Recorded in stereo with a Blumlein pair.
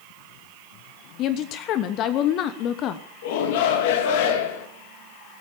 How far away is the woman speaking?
About 1.0 m.